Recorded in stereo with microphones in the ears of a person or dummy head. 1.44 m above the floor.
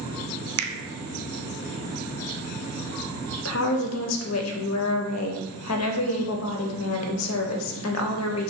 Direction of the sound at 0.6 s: 70° right (ahead or behind).